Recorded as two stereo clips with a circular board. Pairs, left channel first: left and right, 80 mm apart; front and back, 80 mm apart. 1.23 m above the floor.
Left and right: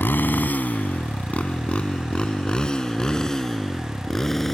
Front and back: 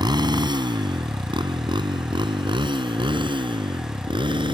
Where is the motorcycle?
155° left; by 4.5 s 175° left.